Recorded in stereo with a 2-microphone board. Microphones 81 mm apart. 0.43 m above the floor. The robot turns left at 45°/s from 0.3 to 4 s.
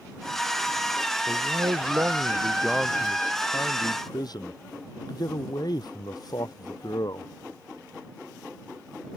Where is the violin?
No violin in this recording.